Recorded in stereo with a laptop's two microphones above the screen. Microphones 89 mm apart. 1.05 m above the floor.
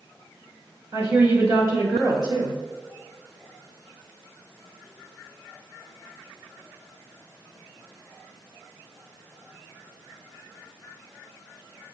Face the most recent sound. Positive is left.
turn(degrees=-40)  # may be behind; listen again after turning